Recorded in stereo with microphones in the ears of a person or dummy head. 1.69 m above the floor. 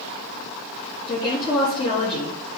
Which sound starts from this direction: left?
A woman speaking, at 1.1 s.